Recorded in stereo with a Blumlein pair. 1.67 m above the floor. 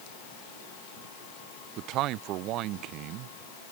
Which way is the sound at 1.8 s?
40° right.